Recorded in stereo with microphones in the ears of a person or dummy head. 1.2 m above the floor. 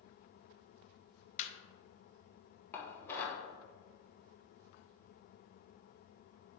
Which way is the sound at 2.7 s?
15° left (ahead or behind).